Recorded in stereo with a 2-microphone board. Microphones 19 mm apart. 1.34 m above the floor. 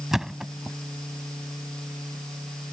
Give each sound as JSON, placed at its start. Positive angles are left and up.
{"t": 0.1, "sound": "a thud", "side_deg": -25}